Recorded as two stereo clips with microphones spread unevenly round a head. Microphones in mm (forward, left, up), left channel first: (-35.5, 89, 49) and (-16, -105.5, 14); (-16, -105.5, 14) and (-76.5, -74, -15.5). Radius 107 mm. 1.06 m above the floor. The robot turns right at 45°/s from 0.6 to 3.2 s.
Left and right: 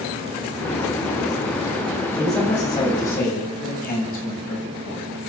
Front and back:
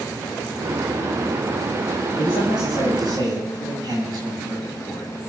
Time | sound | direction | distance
2.2 | a man speaking | straight ahead | 8.5 m